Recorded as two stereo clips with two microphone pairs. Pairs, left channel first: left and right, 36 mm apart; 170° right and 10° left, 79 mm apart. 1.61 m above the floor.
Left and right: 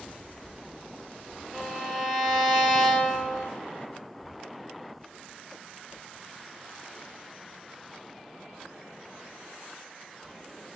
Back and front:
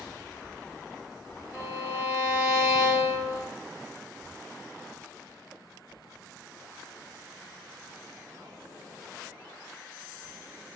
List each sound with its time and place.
1.5 s a violin: 55° right, 1.4 m